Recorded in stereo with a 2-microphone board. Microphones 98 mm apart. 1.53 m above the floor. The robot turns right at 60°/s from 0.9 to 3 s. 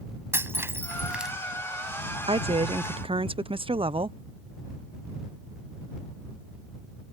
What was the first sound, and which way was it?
Breaking glass, 25° right (ahead or behind).